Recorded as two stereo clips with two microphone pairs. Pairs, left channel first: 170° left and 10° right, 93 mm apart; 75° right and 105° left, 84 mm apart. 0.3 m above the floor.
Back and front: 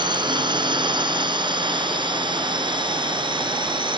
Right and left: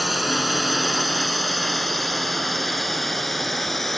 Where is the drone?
15° left.